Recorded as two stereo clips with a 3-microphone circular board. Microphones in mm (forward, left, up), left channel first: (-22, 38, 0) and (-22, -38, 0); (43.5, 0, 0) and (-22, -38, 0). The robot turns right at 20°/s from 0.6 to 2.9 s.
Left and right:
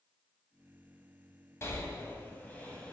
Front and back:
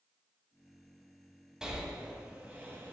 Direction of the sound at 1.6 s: 130° left.